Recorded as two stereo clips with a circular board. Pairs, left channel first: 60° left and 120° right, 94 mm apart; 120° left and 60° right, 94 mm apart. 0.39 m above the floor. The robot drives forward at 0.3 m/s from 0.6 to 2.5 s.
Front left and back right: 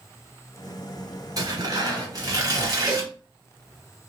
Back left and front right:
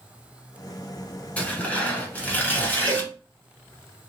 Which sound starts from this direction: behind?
Tearing paper, at 1.4 s.